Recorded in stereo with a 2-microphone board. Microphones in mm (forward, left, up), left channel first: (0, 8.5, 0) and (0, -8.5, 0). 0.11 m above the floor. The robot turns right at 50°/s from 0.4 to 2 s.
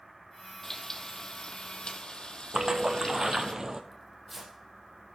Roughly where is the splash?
Right.